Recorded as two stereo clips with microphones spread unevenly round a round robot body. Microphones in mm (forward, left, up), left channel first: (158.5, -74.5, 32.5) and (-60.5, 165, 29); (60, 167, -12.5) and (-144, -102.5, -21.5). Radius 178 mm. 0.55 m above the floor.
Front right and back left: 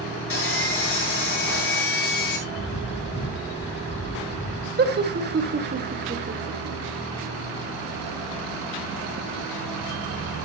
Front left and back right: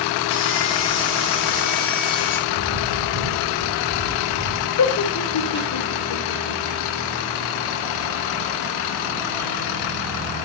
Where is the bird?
110° right, 2.5 m.